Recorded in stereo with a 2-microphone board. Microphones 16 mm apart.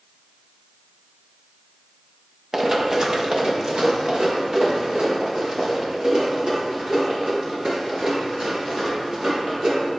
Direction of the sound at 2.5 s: 25° right (ahead or behind).